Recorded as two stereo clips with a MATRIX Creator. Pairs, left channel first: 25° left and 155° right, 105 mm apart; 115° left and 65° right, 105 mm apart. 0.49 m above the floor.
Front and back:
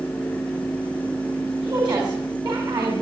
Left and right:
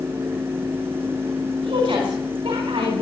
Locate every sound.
1.6 s a woman speaking: 110° right, 4 m